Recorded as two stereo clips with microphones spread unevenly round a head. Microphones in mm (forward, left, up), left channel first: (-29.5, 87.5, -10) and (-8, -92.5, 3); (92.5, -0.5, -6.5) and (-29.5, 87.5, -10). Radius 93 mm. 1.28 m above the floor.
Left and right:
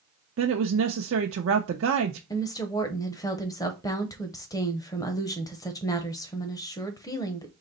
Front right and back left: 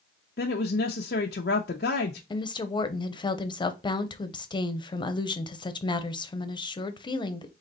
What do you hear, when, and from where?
0.4 s a woman speaking: 70° right, 0.6 m
2.3 s a woman speaking: 25° left, 0.8 m